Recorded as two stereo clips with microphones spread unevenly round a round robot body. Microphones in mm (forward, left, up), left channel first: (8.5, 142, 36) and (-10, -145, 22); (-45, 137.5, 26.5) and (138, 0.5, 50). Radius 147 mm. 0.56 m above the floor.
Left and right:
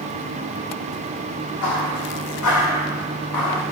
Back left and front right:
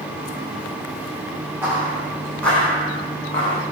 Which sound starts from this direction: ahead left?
Footsteps, at 1.6 s.